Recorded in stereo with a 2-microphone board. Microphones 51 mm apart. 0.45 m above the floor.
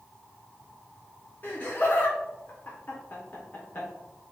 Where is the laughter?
35° left (ahead or behind), 1.0 m.